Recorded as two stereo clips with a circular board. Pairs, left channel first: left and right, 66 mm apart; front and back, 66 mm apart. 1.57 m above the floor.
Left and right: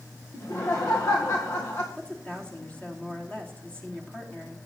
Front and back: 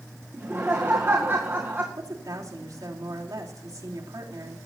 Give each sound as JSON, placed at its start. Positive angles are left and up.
{"t": 0.3, "sound": "laughter", "azimuth_deg": 125, "distance_m": 1.9}
{"t": 2.0, "sound": "a woman speaking", "azimuth_deg": 165, "distance_m": 4.0}